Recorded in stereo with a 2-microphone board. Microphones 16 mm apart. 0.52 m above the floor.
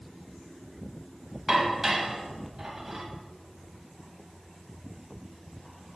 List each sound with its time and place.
1.5 s dishes clattering: 25° right (ahead or behind), 1.8 m